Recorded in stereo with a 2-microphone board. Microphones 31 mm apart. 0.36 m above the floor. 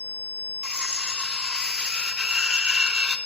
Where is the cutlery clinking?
25° right (ahead or behind), 0.5 m.